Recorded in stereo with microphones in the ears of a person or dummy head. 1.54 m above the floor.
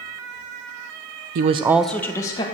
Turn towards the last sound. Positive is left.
turn(degrees=20)  # may be behind; listen again after turning